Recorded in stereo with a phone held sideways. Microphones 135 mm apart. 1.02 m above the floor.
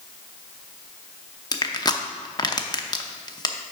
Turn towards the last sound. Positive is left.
turn(degrees=30)  # may be behind; listen again after turning